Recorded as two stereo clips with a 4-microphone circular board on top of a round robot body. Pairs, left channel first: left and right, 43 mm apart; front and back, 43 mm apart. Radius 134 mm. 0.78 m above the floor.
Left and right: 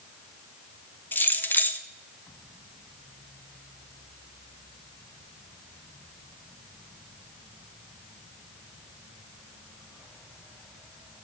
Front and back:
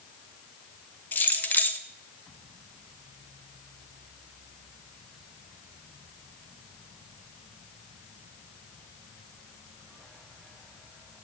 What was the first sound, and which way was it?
Keys jangling, 50° left.